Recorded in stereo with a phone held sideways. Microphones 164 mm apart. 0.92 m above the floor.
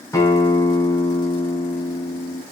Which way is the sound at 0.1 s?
20° left (ahead or behind).